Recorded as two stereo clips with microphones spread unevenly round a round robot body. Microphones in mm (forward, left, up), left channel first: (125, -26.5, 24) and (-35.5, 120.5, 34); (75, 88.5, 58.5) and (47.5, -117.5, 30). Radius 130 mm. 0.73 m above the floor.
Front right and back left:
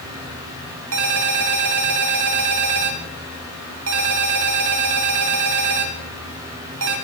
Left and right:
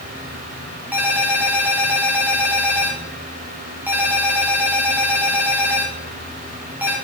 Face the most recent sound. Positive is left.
turn(degrees=180)